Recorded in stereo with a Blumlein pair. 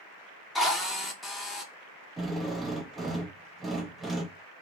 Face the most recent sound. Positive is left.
turn(degrees=-10)